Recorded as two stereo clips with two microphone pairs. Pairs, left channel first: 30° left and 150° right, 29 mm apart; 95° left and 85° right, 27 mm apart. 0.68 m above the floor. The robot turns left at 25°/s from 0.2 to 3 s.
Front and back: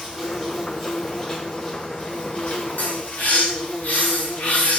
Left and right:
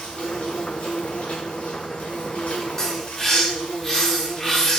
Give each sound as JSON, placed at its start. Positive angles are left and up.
{"t": 0.0, "sound": "an insect", "azimuth_deg": 135, "distance_m": 1.3}
{"t": 2.8, "sound": "a bird", "azimuth_deg": 25, "distance_m": 0.7}